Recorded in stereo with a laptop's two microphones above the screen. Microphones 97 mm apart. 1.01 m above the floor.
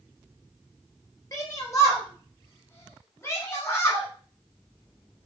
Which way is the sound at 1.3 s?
35° left (ahead or behind).